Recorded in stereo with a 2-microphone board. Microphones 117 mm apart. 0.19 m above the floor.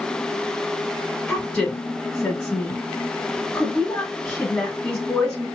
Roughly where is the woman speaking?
Centre.